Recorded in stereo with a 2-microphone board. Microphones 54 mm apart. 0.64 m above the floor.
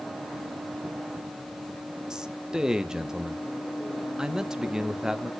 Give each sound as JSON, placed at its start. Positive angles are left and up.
{"t": 2.1, "sound": "a man speaking", "side_deg": -10, "distance_m": 0.5}